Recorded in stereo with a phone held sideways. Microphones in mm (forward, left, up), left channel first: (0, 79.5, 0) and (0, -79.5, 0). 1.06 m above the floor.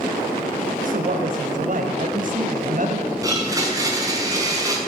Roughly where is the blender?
Right.